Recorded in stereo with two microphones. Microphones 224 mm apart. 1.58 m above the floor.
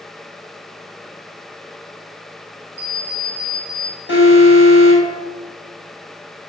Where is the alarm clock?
25° left (ahead or behind), 5.5 m.